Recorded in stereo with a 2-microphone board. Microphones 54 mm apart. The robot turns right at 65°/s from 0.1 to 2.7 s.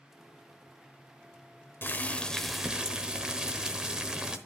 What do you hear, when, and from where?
1.8 s boiling: 135° left, 0.9 m; by 4.4 s 165° right, 0.9 m